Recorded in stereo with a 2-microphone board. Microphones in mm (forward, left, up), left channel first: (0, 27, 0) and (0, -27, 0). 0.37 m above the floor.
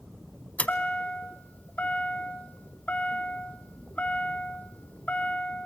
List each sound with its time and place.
0.6 s a chime: 30° left (ahead or behind), 0.6 m